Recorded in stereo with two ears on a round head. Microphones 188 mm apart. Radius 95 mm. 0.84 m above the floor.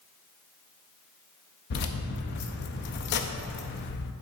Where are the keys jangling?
55° left (ahead or behind), 0.5 m.